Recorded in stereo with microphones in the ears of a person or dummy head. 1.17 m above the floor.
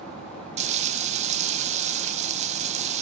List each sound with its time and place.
0.6 s frying: 30° right (ahead or behind), 0.7 m